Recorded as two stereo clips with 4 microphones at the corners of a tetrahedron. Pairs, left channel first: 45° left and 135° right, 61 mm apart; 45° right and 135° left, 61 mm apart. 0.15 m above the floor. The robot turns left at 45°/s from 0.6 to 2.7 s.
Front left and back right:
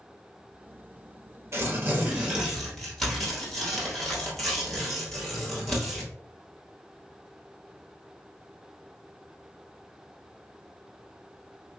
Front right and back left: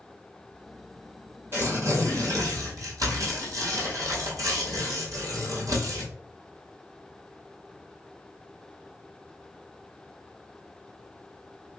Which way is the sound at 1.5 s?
Straight behind.